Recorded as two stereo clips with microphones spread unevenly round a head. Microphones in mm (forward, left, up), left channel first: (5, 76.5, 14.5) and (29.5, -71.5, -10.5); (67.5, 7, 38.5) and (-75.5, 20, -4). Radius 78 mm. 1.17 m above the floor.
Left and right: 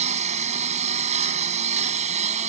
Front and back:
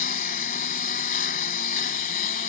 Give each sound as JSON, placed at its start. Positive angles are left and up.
{"t": 0.0, "sound": "a lawn mower", "azimuth_deg": -35}